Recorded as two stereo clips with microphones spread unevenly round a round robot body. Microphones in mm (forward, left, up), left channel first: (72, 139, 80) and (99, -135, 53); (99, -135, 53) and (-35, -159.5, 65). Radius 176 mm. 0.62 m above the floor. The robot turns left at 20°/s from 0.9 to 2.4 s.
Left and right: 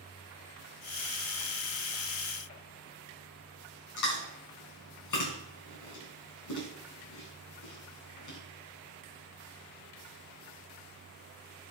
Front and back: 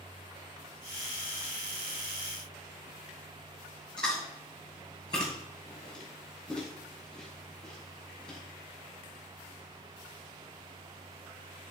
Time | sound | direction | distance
4.0 | chewing | 80° left | 3.5 m